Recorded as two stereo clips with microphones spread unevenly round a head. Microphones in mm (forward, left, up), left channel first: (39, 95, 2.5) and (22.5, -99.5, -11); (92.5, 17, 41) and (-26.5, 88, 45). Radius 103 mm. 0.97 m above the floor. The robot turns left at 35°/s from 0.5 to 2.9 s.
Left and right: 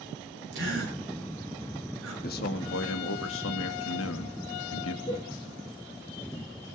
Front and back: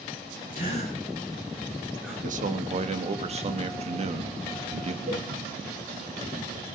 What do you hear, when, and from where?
0.5 s a gasp: 70° right, 9 m; by 2.1 s 130° right, 9 m
2.2 s a man speaking: 135° left, 1.7 m; by 5.0 s 110° left, 1.7 m
5.1 s a cowbell: 150° left, 9 m